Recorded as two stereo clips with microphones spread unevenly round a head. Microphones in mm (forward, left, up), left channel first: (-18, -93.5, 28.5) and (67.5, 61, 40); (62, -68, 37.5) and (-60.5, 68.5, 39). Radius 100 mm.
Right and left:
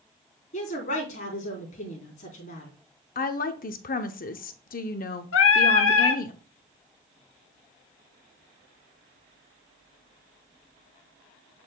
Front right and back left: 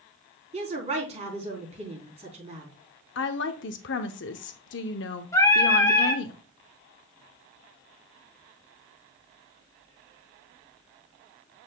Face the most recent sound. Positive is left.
turn(degrees=-120)